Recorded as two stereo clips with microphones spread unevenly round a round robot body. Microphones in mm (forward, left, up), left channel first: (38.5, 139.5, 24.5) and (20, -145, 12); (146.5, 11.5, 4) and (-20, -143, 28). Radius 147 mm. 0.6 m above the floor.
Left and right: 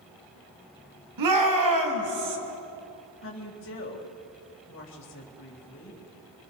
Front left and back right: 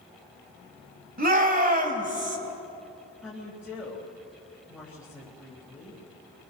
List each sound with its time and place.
1.2 s a shout: 90° right, 3.5 m; by 2.4 s 80° right, 3.5 m
3.2 s a woman speaking: 135° left, 3.5 m